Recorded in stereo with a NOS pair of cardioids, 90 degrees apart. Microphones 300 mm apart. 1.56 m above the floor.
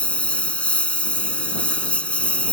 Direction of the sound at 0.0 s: 5° left.